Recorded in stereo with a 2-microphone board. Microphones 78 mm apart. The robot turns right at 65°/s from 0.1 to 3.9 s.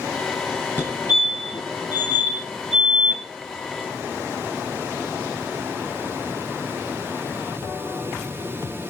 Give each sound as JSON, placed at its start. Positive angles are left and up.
{"t": 0.8, "sound": "a fire alarm", "side_deg": 25, "distance_m": 4.0}